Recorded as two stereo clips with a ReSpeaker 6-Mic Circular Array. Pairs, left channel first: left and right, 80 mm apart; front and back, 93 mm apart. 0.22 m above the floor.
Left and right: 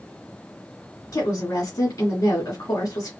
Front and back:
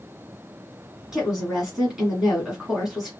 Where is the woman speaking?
95° left, 1.6 m.